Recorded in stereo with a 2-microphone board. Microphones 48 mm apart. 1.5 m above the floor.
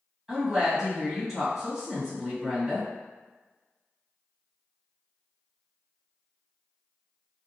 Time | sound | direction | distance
0.3 | a woman speaking | 15° right (ahead or behind) | 1.4 m